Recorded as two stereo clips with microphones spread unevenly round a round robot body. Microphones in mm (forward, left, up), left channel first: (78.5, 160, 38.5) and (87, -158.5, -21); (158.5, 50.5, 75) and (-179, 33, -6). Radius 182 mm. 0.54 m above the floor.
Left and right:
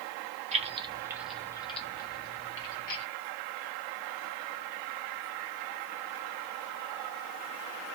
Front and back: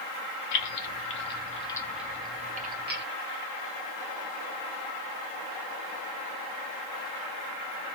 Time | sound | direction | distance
0.5 | keys jangling | 35° right | 0.8 m